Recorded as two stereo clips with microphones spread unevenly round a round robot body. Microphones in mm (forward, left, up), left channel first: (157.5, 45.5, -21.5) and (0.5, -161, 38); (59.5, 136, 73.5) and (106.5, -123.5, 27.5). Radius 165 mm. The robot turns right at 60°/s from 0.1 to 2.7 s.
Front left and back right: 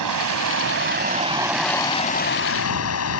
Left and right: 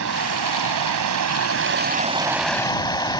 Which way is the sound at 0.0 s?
130° right.